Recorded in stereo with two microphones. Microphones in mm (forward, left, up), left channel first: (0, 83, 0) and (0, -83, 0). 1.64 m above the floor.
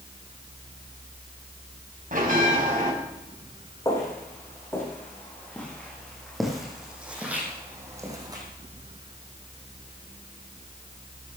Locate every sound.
2.1 s a bell: 60° right (ahead or behind), 4 m
3.9 s footsteps: 20° left (ahead or behind), 6 m; by 8.4 s 25° right (ahead or behind), 4 m